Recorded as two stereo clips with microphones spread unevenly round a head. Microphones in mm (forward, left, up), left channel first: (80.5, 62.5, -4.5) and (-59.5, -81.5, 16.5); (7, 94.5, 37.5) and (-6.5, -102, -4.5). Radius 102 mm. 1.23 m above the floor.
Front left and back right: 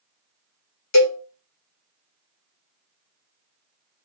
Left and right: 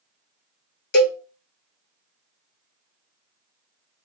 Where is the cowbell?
45° left, 1.1 m.